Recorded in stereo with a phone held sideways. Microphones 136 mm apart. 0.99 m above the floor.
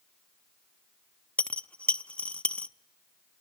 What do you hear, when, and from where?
1.4 s a dropped coin: 10° left (ahead or behind), 0.5 m